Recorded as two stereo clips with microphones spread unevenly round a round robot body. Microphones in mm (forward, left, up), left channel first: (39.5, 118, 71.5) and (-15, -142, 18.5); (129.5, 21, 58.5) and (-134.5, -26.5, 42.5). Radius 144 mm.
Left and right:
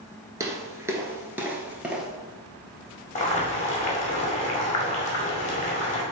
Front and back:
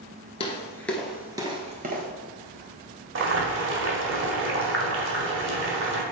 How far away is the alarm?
No alarm in this recording.